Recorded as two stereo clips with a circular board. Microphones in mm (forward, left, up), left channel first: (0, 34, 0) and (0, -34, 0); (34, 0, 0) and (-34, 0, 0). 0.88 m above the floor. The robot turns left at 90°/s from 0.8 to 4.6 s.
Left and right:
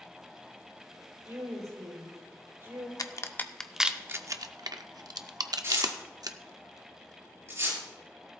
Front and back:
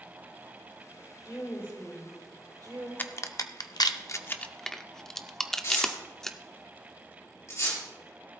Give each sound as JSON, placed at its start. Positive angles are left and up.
{"t": 1.2, "sound": "a woman speaking", "azimuth_deg": -25, "distance_m": 6.0}
{"t": 3.0, "sound": "a crack", "azimuth_deg": 65, "distance_m": 0.7}
{"t": 5.6, "sound": "tearing paper", "azimuth_deg": -40, "distance_m": 5.0}